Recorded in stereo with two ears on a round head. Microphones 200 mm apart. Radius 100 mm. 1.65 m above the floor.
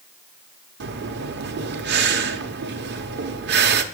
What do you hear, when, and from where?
0.8 s breathing: 50° right (ahead or behind), 0.9 m